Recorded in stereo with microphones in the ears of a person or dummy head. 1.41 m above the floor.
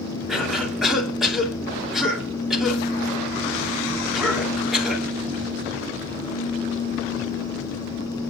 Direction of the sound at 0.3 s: 5° left (ahead or behind).